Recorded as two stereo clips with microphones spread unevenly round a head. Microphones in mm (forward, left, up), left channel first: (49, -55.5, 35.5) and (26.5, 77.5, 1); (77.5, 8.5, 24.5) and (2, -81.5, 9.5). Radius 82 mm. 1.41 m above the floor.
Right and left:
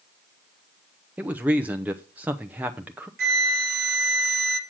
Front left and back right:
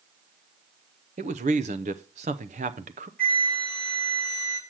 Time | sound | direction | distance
1.2 | a man speaking | straight behind | 0.6 m
3.2 | a flute | 130° left | 1.4 m